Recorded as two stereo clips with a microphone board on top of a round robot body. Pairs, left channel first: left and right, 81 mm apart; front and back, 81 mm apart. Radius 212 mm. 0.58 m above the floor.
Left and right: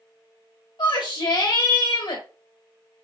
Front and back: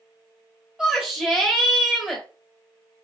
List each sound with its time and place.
0.8 s a shout: 100° left, 2.5 m